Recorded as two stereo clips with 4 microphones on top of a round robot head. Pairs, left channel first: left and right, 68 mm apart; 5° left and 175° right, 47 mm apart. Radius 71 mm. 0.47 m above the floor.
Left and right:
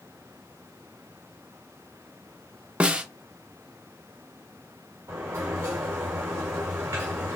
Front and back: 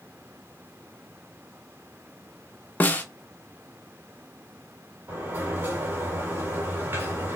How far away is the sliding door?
About 2 m.